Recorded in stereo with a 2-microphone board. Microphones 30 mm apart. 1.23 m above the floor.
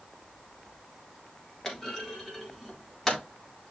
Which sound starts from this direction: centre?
A clunk, at 1.6 s.